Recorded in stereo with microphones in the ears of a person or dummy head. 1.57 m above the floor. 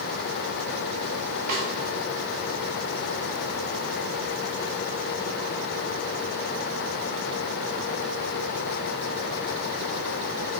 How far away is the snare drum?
About 3.5 m.